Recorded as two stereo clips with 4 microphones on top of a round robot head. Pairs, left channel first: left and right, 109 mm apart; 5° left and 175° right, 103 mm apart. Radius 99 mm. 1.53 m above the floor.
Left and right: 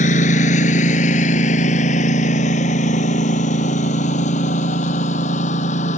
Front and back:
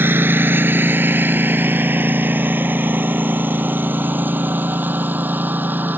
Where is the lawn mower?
120° left; by 6.0 s 115° left.